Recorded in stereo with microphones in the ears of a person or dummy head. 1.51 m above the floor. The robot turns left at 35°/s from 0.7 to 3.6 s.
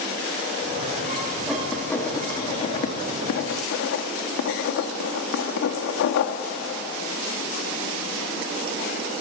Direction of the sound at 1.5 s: Centre (ahead or behind).